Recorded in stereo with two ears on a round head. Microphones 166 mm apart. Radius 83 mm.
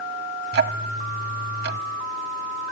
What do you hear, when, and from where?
0.5 s ticking: 55° right (ahead or behind), 0.9 m